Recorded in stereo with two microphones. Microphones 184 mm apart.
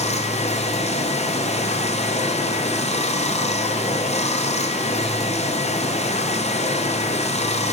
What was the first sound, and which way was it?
Running water, 35° left (ahead or behind).